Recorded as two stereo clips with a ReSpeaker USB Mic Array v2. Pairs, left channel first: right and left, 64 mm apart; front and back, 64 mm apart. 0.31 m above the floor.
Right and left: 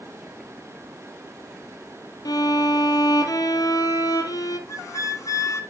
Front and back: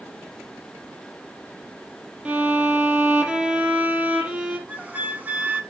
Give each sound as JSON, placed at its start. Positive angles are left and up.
{"t": 2.2, "sound": "a violin", "azimuth_deg": -105, "distance_m": 2.0}
{"t": 4.7, "sound": "a flute", "azimuth_deg": -115, "distance_m": 1.2}